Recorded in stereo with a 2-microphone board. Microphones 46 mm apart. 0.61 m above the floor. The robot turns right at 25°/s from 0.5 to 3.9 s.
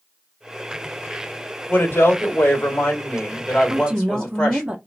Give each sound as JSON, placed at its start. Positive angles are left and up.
{"t": 1.7, "sound": "a woman speaking", "azimuth_deg": 110, "distance_m": 2.0}
{"t": 3.7, "sound": "a woman speaking", "side_deg": -20, "distance_m": 0.6}